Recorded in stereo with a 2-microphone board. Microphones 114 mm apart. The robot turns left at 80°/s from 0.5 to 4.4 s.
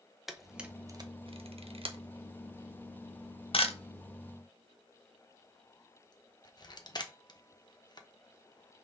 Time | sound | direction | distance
0.3 | a camera shutter | centre (ahead or behind) | 1.0 m